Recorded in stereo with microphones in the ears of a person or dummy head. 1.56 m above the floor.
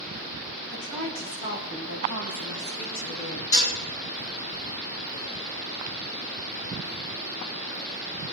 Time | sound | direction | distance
0.7 | a woman speaking | 85° left | 4 m
3.5 | dishes clattering | 75° left (ahead or behind) | 5 m